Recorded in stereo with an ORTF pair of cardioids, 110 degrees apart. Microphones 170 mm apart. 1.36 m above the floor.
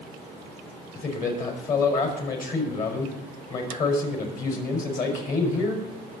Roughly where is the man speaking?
Ahead left.